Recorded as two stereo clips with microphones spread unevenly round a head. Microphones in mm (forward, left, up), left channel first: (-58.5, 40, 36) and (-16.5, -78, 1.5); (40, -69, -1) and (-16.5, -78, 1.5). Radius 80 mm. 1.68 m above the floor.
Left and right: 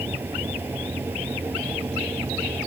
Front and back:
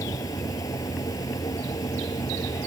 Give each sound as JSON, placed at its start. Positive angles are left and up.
{"t": 0.0, "sound": "a fan", "azimuth_deg": 10}